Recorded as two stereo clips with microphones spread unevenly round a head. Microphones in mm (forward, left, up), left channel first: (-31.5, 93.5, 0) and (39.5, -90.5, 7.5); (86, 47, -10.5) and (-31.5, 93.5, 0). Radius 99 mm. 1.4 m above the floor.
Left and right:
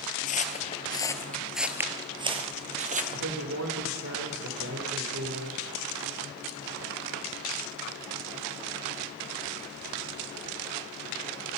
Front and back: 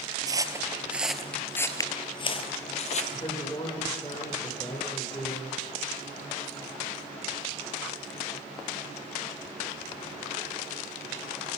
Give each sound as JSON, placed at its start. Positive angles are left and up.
{"t": 0.3, "sound": "footsteps", "azimuth_deg": 135, "distance_m": 1.7}
{"t": 3.1, "sound": "a woman speaking", "azimuth_deg": -90, "distance_m": 4.0}